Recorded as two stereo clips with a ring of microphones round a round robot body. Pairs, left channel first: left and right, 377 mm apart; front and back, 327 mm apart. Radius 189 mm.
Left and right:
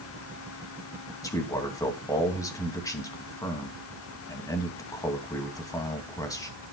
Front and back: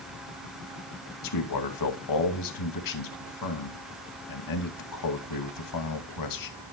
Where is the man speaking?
10° left, 2.5 m.